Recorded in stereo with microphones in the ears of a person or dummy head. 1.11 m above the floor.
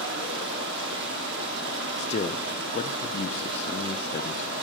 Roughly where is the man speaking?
Left.